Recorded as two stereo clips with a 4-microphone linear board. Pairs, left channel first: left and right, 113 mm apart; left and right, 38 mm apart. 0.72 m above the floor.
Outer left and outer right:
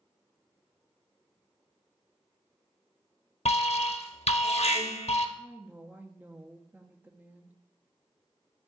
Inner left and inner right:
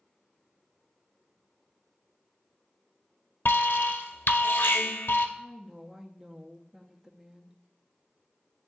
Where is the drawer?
No drawer in this recording.